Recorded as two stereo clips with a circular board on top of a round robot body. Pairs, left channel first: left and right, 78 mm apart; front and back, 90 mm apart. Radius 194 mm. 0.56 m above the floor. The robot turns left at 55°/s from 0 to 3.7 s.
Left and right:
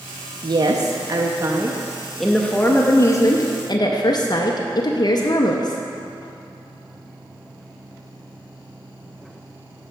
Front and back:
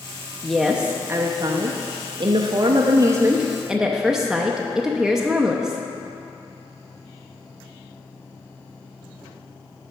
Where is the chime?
I don't hear a chime.